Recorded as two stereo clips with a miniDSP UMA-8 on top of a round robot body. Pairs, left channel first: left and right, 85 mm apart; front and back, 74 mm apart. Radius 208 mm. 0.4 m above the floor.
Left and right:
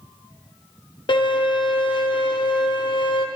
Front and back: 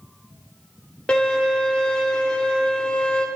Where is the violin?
75° left, 1.7 m.